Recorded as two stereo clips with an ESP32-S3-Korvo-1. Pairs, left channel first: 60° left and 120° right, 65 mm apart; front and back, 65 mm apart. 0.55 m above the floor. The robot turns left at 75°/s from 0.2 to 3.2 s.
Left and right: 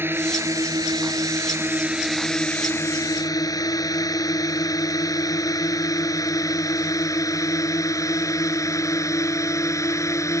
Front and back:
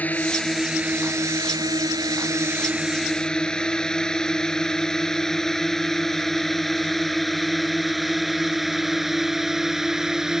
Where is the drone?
65° right; by 10.4 s 95° left.